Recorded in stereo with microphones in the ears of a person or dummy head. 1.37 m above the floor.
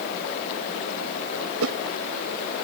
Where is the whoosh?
85° right.